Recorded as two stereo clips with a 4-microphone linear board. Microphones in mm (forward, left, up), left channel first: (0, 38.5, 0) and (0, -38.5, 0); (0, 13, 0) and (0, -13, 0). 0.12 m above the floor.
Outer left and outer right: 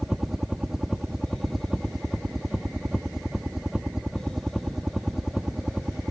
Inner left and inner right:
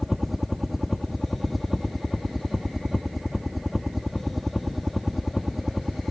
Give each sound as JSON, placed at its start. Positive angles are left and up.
{"t": 0.0, "sound": "a helicopter", "side_deg": -5}